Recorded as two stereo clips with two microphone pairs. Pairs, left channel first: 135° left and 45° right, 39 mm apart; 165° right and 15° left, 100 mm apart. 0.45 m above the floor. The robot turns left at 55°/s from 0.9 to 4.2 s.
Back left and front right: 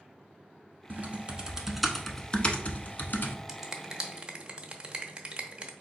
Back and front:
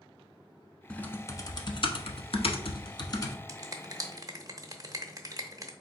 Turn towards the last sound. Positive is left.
turn(degrees=-5)